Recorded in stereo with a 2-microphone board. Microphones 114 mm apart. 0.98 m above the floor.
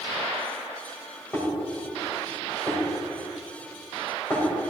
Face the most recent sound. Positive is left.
turn(degrees=20)  # may be behind; listen again after turning